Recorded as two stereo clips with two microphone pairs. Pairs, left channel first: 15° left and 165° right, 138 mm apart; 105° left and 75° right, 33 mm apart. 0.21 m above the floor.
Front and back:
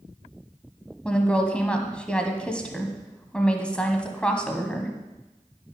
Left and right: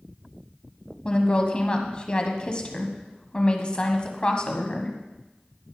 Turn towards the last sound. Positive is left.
turn(degrees=90)